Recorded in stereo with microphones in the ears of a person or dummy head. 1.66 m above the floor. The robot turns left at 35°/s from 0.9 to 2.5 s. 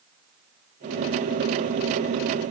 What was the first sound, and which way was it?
Only background noise.